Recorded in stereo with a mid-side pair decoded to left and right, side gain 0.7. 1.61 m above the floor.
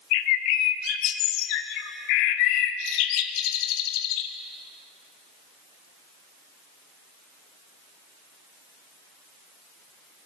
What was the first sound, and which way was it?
A bird, 70° left.